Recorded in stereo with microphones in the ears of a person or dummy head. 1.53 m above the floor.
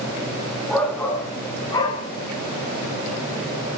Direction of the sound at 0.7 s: 5° left (ahead or behind).